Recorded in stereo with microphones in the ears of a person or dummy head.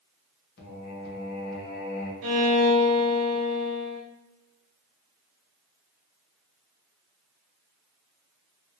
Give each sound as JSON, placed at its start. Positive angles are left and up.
{"t": 0.6, "sound": "singing", "side_deg": 55, "distance_m": 0.9}
{"t": 2.2, "sound": "a violin", "side_deg": -70, "distance_m": 0.8}